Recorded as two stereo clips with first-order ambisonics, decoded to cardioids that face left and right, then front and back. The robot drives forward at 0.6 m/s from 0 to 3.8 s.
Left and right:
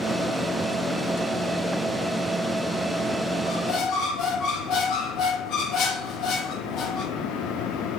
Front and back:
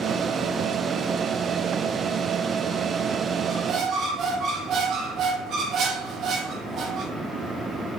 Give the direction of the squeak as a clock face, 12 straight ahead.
8 o'clock.